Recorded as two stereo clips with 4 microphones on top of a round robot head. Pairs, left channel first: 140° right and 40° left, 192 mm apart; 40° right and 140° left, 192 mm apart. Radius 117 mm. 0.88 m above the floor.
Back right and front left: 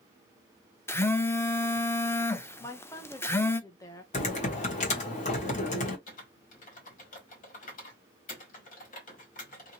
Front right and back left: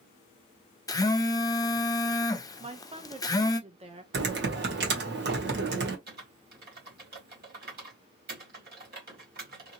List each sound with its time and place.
0.9 s a phone buzzing: 80° right, 0.6 m
2.6 s a woman speaking: 165° left, 0.8 m
4.1 s typing on a keyboard: 170° left, 1.2 m
6.1 s typing on a keyboard: 175° left, 1.8 m